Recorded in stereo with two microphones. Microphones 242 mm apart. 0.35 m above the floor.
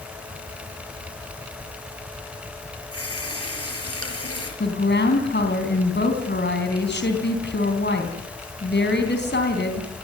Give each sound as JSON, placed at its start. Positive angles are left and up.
{"t": 2.9, "sound": "a running tap", "side_deg": 70, "distance_m": 5.0}
{"t": 4.6, "sound": "a woman speaking", "side_deg": 45, "distance_m": 3.5}